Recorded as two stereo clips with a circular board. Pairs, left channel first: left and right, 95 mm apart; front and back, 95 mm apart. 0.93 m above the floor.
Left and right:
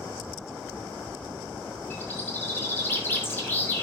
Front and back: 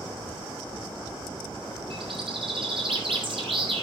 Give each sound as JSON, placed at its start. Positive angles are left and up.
{"t": 1.9, "sound": "a bird", "azimuth_deg": 155, "distance_m": 3.0}